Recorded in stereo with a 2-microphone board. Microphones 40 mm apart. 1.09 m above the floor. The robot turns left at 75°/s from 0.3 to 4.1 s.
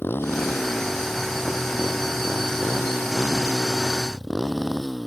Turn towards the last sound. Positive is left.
turn(degrees=180)